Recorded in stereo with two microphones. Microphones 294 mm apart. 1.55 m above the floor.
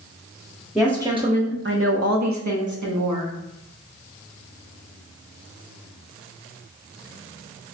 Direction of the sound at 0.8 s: Centre (ahead or behind).